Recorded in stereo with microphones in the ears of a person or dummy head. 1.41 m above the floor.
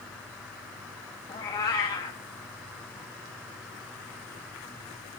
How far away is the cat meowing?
About 0.8 m.